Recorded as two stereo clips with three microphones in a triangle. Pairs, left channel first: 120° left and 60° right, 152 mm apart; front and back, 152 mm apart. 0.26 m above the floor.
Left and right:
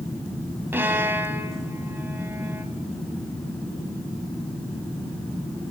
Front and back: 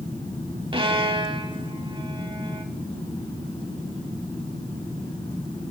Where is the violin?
130° right, 0.6 m.